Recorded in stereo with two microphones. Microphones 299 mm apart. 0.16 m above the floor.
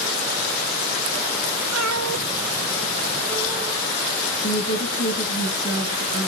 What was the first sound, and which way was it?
A cat meowing, 60° right (ahead or behind).